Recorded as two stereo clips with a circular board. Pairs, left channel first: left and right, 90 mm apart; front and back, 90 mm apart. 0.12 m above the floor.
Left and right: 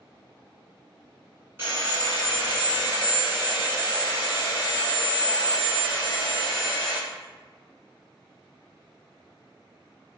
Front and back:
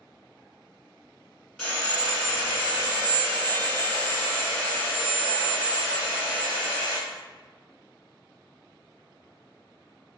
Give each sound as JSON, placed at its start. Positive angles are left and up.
{"t": 1.6, "sound": "sawing", "azimuth_deg": -75, "distance_m": 1.7}